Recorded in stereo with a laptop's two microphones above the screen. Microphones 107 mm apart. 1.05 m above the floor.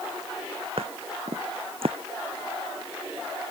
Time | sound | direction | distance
0.8 | footsteps | 65° right (ahead or behind) | ?